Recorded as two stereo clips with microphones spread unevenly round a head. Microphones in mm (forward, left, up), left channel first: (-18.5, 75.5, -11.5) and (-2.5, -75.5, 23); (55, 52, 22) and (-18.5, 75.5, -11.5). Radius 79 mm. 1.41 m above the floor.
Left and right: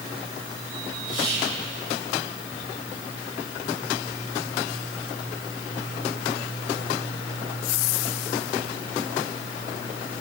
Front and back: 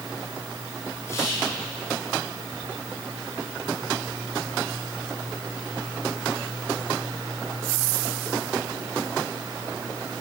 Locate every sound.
1.1 s whispering: 25° left, 10 m